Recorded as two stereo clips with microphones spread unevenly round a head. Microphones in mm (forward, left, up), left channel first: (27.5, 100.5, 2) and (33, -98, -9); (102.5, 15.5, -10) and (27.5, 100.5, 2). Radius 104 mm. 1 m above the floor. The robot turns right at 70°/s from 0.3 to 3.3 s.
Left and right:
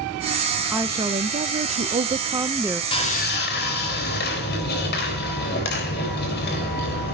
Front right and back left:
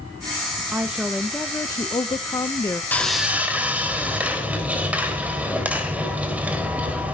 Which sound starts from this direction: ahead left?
Sawing, at 2.9 s.